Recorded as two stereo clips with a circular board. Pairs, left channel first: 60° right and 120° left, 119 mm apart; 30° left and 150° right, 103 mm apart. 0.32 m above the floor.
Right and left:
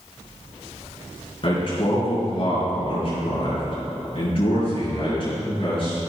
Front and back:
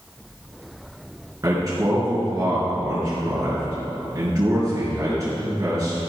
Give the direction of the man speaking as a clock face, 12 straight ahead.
3 o'clock.